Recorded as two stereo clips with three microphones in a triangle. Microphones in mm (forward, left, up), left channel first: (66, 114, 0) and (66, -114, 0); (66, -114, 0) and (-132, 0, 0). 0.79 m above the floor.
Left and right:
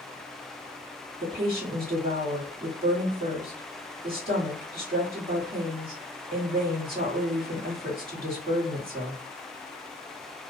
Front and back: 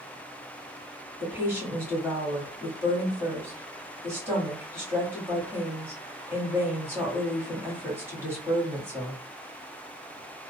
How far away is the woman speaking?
About 1.6 m.